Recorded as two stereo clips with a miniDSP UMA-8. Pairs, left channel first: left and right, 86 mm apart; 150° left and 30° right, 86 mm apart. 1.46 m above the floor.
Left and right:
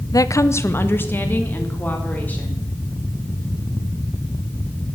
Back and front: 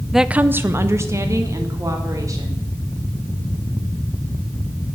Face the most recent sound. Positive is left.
turn(degrees=20)